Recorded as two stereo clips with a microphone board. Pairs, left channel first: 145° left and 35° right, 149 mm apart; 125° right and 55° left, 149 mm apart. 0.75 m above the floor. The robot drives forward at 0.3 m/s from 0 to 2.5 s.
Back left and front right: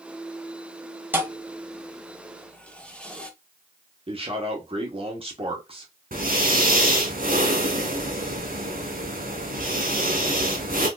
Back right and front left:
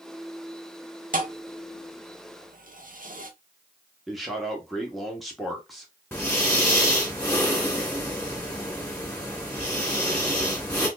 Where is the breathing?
50° right, 1.7 m.